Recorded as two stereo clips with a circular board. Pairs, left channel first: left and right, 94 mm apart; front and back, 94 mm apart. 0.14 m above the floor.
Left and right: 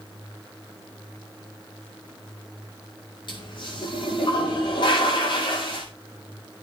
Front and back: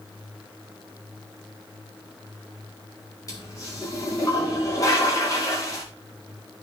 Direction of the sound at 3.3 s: 55° left.